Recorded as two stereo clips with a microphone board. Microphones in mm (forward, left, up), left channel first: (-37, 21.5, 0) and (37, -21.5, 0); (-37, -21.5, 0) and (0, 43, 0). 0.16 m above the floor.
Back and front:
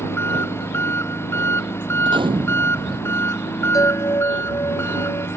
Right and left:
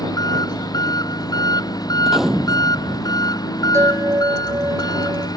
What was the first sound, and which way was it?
An engine running, 150° right.